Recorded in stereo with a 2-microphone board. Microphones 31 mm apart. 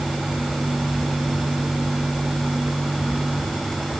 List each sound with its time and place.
Only background noise.